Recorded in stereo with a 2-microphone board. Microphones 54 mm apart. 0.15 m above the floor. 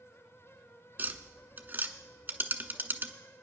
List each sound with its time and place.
1.0 s tapping: 35° right (ahead or behind), 0.9 m